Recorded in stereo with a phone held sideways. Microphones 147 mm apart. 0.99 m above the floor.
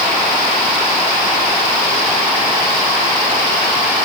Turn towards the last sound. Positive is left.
No sound to turn to.